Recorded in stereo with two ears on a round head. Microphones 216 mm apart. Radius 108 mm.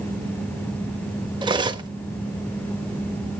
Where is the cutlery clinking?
20° right (ahead or behind), 0.9 m.